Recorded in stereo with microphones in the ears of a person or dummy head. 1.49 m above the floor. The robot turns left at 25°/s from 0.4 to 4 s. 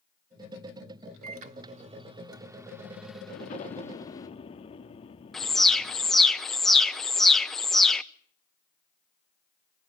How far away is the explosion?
About 1.5 m.